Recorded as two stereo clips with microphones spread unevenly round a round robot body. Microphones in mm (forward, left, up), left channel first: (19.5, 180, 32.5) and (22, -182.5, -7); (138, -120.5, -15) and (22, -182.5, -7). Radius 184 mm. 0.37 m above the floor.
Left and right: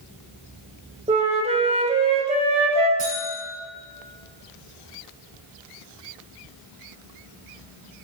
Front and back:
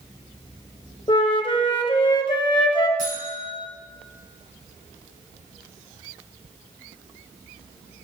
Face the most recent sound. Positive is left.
turn(degrees=-155)